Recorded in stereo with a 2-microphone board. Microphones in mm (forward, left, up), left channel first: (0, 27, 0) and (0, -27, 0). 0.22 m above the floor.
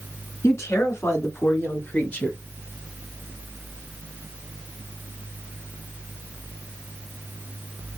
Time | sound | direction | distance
0.4 | a woman speaking | 65° left (ahead or behind) | 2.5 m